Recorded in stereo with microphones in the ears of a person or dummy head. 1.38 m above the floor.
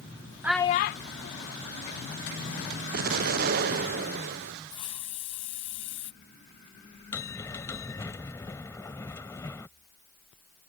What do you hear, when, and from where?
0.4 s a child speaking: 10° right (ahead or behind); by 2.8 s 60° left (ahead or behind)
2.9 s an explosion: 50° right (ahead or behind)
4.7 s a hiss: 30° left (ahead or behind)
7.1 s a bell: 15° left (ahead or behind)